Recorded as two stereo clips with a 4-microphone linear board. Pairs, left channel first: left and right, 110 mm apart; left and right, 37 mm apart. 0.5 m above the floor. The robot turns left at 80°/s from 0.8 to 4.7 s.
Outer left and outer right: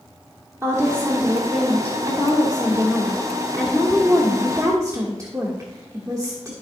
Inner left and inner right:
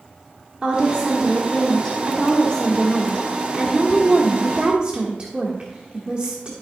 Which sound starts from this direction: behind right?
A woman speaking, at 0.6 s.